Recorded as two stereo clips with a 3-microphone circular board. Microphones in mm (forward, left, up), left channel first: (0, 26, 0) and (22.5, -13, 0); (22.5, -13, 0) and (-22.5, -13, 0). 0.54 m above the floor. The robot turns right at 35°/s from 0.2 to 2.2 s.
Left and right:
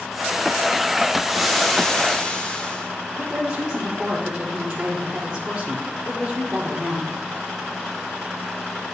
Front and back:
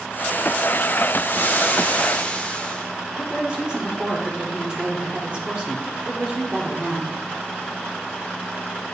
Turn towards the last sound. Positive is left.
turn(degrees=-125)